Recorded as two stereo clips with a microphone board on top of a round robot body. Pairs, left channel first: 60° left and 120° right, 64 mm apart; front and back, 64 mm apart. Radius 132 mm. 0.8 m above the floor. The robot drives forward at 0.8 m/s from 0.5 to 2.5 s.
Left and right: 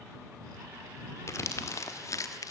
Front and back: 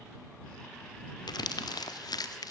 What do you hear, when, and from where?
1.3 s crumpling: 10° left, 1.8 m; by 2.5 s 25° left, 0.9 m